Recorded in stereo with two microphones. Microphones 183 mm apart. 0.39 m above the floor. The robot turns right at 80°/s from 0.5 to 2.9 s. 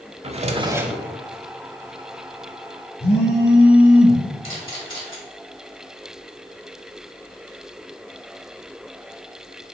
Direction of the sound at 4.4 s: 30° left (ahead or behind).